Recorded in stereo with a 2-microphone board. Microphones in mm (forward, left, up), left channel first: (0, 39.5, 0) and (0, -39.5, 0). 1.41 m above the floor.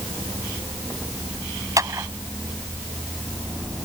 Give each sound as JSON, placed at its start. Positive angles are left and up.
{"t": 1.8, "sound": "a clap", "side_deg": -45}